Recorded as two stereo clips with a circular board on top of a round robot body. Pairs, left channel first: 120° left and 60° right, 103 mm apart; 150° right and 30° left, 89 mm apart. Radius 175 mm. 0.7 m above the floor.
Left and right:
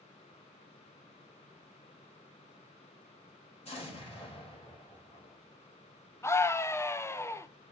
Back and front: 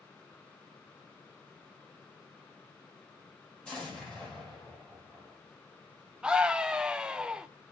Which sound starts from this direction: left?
A scream, at 6.2 s.